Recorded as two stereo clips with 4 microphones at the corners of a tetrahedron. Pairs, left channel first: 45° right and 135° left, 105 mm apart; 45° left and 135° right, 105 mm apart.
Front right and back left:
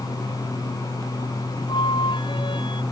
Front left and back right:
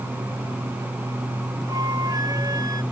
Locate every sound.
1.7 s a flute: 85° right